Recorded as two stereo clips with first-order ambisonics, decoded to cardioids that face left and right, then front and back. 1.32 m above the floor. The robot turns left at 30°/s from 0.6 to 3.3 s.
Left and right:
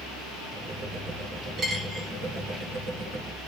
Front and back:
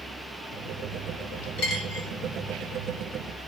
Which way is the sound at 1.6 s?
25° right.